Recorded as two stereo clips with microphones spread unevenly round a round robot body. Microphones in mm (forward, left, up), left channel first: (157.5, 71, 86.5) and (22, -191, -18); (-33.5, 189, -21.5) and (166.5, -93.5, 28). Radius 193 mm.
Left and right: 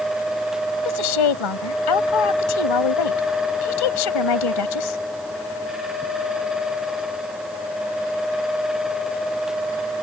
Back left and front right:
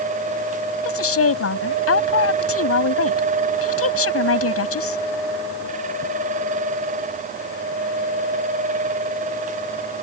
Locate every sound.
0.8 s a woman speaking: 75° left